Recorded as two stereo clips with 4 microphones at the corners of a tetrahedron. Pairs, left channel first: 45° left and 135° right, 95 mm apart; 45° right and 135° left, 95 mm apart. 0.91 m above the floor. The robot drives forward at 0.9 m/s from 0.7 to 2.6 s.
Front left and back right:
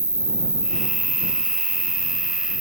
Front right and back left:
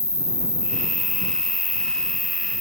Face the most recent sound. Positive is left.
turn(degrees=-140)